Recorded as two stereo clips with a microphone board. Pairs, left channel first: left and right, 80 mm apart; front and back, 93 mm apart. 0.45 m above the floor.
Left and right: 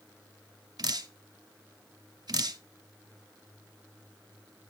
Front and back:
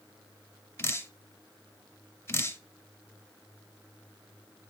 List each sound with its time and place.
0.8 s dripping: 60° right, 0.5 m